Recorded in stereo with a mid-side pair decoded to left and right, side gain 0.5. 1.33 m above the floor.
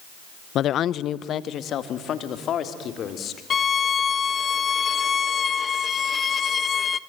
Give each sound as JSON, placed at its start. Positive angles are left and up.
{"t": 0.6, "sound": "a woman speaking", "azimuth_deg": 60, "distance_m": 0.5}
{"t": 3.5, "sound": "a violin", "azimuth_deg": 40, "distance_m": 1.2}